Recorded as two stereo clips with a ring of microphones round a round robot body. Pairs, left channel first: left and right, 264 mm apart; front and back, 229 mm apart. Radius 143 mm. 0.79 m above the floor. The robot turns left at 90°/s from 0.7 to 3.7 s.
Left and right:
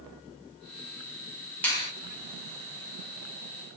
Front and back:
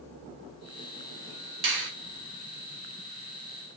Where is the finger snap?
175° left, 1.2 m; by 1.9 s 150° left, 1.2 m.